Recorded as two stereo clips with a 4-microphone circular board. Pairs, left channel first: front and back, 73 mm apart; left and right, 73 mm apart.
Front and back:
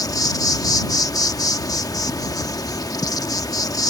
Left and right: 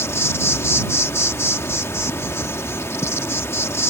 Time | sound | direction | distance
0.0 | an insect | 35° left | ?